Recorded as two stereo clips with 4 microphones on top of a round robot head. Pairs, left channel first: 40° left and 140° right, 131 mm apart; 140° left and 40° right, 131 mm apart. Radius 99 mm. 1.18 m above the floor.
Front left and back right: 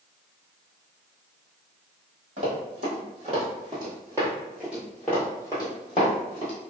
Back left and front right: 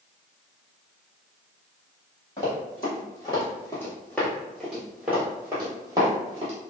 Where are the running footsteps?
165° right, 1.7 m; by 6.5 s 10° left, 1.4 m.